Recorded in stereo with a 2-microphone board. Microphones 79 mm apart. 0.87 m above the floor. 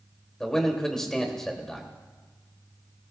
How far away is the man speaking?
About 1.9 m.